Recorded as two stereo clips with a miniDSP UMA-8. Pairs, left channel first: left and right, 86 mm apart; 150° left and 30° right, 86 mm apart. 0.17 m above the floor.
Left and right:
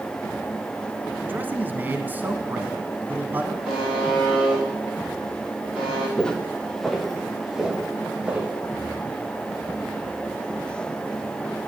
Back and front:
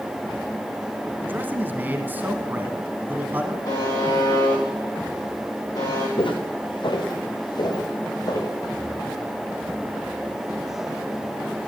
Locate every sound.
1.2 s a man speaking: 60° right, 1.2 m
3.6 s a buzzer: 170° right, 7.5 m
6.2 s footsteps: 170° left, 1.9 m; by 8.5 s 165° right, 3 m